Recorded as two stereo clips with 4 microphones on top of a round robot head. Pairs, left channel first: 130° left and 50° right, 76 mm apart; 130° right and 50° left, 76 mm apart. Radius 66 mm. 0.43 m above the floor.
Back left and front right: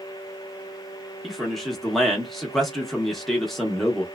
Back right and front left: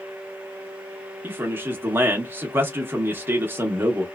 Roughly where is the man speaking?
Ahead left.